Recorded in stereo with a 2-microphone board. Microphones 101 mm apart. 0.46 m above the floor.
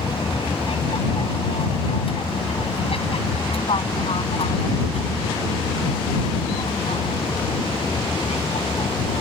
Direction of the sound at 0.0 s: 65° left (ahead or behind).